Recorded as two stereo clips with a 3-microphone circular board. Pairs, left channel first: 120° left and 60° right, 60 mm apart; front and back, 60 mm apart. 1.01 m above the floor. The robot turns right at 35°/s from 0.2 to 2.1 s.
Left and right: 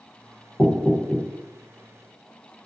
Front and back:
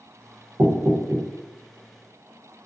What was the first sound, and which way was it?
Knocking, 175° left.